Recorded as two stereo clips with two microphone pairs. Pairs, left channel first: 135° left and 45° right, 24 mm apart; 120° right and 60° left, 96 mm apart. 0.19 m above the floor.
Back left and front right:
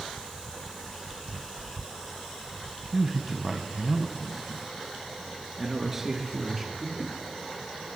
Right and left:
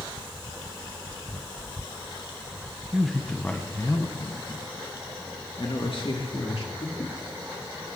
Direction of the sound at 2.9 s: 5° right.